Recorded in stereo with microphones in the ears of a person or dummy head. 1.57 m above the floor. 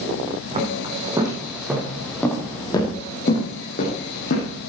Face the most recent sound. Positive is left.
turn(degrees=55)  # may be behind; listen again after turning